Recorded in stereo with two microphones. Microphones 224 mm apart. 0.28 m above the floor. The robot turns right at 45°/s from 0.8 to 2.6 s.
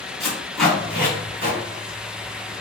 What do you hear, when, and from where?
0.2 s tape being pulled: centre (ahead or behind), 1.8 m; by 1.6 s 30° right (ahead or behind), 1.8 m